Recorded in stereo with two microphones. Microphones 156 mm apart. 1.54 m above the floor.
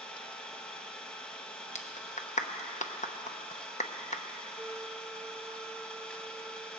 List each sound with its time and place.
0.0 s an engine running: 5° left (ahead or behind), 1.0 m
1.8 s a clap: 50° left (ahead or behind), 0.8 m
4.6 s a flute: 5° right (ahead or behind), 0.7 m